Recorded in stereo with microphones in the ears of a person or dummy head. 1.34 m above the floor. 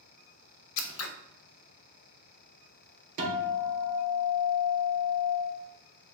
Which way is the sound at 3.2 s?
40° right (ahead or behind).